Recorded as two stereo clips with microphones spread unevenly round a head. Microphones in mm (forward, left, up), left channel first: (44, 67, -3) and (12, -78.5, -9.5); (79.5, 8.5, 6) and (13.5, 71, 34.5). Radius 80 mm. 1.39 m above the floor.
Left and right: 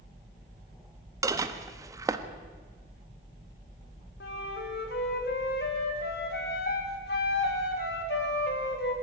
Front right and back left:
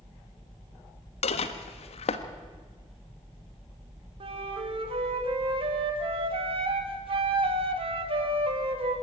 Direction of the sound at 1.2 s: 35° right.